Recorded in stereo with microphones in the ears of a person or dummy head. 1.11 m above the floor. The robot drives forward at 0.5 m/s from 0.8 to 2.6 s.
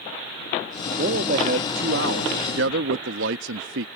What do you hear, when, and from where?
1.0 s a man speaking: 50° right (ahead or behind); by 3.9 s 70° right (ahead or behind)